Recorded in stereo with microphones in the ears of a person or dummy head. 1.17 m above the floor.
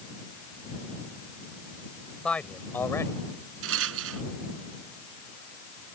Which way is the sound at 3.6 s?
85° right.